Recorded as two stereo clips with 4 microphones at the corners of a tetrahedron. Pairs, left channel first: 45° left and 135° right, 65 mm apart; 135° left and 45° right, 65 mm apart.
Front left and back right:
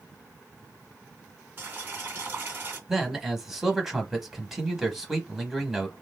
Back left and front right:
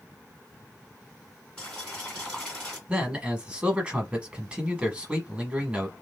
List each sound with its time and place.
1.6 s boiling: 160° right, 1.7 m
2.9 s a man speaking: 60° right, 1.0 m